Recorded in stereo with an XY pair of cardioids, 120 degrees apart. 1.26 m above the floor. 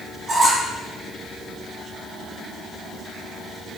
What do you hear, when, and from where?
0.3 s a squeak: 25° right, 1.2 m